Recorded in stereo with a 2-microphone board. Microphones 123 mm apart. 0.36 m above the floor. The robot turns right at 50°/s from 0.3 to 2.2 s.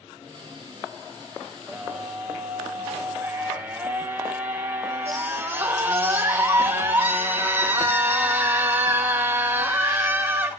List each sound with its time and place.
1.7 s a scream: 5° right (ahead or behind), 1.7 m; by 10.5 s 15° right (ahead or behind), 1.7 m